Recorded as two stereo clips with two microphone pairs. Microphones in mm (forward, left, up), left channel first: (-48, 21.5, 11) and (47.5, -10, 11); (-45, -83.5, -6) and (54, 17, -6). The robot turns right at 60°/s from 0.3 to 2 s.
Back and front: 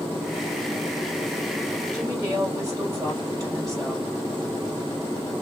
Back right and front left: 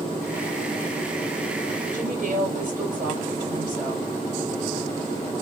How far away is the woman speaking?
About 2 m.